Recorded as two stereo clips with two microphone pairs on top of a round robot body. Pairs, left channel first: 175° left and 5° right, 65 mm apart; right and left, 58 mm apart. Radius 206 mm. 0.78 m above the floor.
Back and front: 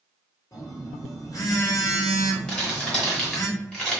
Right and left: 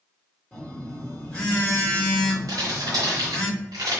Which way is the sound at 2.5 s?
100° left.